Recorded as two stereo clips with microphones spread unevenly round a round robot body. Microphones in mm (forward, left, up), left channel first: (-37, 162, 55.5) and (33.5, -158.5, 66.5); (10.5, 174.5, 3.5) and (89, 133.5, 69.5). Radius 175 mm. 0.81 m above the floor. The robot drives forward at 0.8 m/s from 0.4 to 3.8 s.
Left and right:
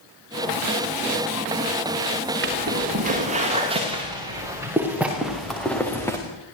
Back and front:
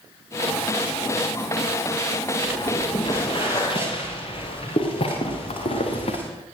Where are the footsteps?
140° right, 7 m; by 6.2 s 175° right, 5.5 m.